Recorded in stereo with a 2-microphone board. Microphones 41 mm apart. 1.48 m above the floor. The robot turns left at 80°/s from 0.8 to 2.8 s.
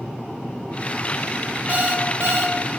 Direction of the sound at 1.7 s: 45° right.